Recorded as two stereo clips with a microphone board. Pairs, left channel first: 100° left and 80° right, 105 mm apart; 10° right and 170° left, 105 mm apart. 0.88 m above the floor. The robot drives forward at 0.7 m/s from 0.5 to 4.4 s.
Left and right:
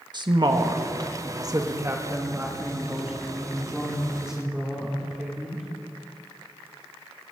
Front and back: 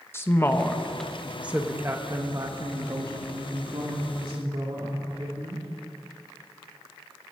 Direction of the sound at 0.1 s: 70° right.